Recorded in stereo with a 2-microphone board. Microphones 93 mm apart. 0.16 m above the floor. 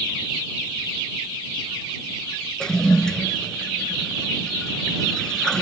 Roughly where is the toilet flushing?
Centre.